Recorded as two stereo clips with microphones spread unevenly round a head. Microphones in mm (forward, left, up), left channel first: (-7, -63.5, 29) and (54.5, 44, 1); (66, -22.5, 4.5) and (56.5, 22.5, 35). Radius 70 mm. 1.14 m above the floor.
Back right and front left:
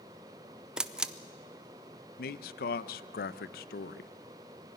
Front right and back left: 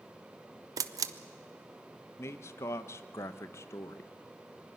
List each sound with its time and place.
0.8 s a camera shutter: 125° left, 0.6 m
2.2 s a man speaking: 115° right, 0.6 m